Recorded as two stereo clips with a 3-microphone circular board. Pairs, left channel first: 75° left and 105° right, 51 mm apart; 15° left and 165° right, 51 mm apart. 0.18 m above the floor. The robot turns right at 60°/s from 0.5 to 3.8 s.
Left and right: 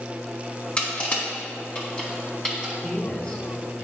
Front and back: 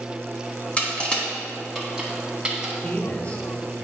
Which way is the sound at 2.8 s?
15° left.